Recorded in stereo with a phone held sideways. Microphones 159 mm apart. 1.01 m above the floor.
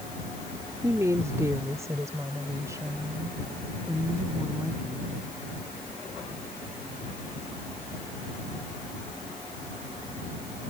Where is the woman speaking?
20° right (ahead or behind).